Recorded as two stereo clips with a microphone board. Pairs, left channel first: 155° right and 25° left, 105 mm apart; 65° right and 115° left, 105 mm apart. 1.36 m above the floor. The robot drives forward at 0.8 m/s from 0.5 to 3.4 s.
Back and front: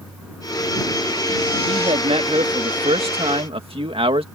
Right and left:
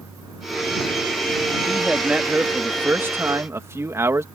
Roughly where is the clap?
I don't hear a clap.